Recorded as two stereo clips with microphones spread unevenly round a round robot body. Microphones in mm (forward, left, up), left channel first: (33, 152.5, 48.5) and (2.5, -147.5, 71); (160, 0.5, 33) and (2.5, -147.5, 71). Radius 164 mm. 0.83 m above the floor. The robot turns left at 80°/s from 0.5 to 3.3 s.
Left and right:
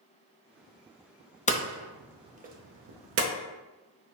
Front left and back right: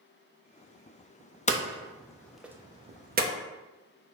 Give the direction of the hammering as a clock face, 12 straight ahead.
11 o'clock.